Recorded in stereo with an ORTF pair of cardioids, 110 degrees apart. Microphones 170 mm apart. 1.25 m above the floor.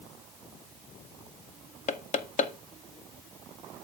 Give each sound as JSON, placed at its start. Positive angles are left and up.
{"t": 1.9, "sound": "knocking", "azimuth_deg": 45, "distance_m": 0.9}